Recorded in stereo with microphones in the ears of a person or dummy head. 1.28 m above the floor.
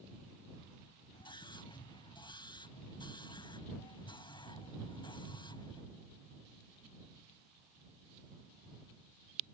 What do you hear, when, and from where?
1.1 s a scream: 20° left (ahead or behind)